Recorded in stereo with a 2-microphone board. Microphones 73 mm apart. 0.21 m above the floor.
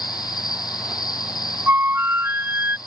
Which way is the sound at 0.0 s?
70° left (ahead or behind).